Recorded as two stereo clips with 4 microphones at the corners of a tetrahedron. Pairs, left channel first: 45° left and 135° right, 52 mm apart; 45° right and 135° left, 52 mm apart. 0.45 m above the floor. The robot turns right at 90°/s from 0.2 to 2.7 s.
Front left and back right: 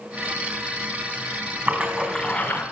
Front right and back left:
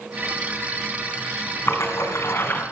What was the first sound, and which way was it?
A splash, 85° right.